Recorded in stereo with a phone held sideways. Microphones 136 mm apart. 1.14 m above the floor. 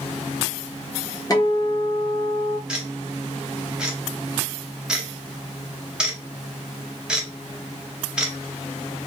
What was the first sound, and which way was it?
A guitar, 30° left (ahead or behind).